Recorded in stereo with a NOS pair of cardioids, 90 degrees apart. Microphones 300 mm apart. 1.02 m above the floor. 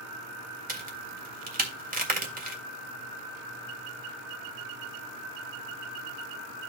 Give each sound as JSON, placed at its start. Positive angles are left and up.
{"t": 0.7, "sound": "a crack", "azimuth_deg": -30, "distance_m": 1.9}